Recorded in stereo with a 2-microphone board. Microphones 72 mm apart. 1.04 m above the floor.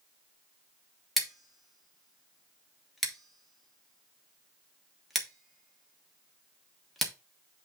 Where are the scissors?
Centre (ahead or behind), 1.4 m.